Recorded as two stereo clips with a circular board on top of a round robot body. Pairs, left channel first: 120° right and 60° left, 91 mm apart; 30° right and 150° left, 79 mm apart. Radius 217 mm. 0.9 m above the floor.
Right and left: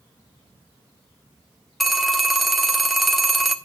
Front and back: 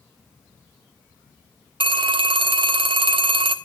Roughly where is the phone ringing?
Behind left.